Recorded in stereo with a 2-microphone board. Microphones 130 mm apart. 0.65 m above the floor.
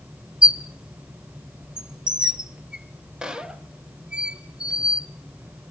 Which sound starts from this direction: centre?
A squeak, at 0.4 s.